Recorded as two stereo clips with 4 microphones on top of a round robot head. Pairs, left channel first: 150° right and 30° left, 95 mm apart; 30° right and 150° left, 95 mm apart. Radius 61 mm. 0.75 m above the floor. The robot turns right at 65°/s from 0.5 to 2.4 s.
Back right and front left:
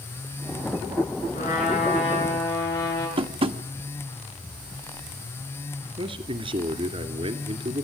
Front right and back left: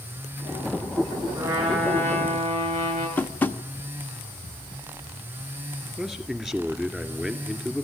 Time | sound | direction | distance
1.3 | a trumpet | 150° right | 8.5 m
3.2 | tapping | 40° left | 1.2 m
6.0 | a man speaking | 60° left | 2.5 m